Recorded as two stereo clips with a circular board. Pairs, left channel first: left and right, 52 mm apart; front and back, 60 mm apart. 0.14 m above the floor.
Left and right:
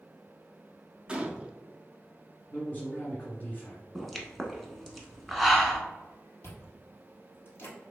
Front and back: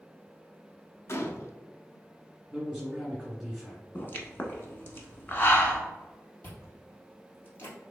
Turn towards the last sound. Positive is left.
turn(degrees=50)